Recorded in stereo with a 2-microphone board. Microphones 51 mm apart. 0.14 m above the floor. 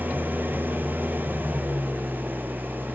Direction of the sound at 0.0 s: 40° right (ahead or behind).